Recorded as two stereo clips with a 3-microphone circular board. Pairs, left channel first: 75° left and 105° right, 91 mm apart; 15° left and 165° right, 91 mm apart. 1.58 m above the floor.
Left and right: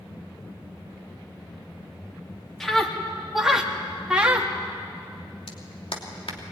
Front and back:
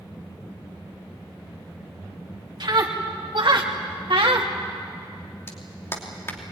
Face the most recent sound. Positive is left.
turn(degrees=80)